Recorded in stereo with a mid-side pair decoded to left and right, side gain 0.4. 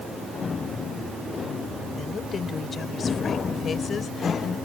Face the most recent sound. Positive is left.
turn(degrees=60)